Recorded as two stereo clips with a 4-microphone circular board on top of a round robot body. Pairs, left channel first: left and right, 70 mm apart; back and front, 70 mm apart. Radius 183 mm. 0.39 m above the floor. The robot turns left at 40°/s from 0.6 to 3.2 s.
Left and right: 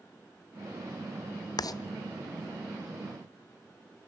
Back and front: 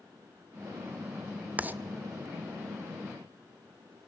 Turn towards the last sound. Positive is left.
turn(degrees=5)